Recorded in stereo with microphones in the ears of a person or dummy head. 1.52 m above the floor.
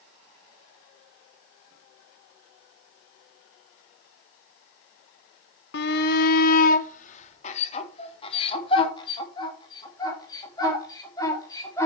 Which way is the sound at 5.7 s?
70° left (ahead or behind).